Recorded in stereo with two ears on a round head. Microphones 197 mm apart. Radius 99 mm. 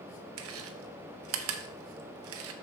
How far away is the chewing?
About 0.8 m.